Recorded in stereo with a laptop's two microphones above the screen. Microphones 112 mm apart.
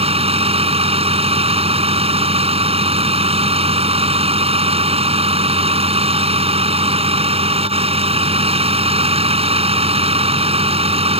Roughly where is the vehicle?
Right.